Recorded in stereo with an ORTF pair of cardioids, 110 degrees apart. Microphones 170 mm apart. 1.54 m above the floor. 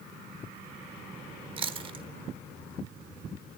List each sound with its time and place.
1.6 s chewing: 30° right, 0.8 m